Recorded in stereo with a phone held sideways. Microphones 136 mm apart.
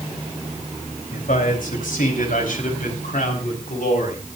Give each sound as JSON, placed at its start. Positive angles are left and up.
{"t": 1.1, "sound": "a man speaking", "side_deg": 85, "distance_m": 4.5}